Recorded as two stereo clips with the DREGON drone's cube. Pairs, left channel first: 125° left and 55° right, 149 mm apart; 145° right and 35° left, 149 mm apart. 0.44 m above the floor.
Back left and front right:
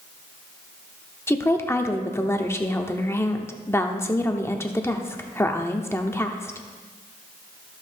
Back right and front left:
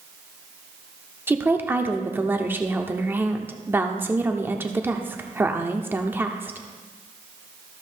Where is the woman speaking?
85° left, 0.8 m.